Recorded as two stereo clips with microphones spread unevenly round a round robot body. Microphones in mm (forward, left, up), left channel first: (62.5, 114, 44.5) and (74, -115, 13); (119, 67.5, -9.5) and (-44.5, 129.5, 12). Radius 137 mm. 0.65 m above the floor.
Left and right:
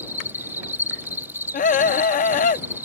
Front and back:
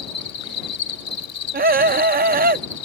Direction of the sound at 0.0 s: 5° right.